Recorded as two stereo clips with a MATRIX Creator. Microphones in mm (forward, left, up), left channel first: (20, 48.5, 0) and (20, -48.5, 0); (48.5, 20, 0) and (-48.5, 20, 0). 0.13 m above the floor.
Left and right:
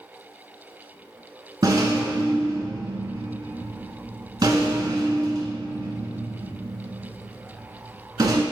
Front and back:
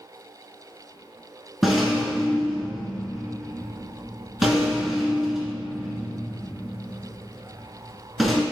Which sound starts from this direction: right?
A rattle, at 1.6 s.